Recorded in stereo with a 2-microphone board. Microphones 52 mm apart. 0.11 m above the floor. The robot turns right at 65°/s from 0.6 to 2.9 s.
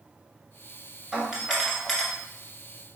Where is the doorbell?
45° right, 1.7 m; by 2.1 s 15° left, 1.7 m.